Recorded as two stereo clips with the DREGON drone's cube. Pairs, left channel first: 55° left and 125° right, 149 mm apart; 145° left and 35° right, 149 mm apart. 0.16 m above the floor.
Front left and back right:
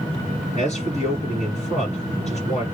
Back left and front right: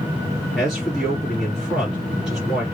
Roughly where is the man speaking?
Ahead left.